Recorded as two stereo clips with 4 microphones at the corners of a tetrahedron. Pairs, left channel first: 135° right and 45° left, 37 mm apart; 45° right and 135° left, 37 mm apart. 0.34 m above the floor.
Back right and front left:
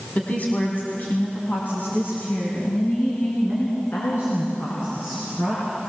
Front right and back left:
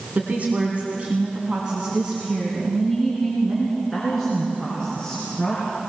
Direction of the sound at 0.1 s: 175° left.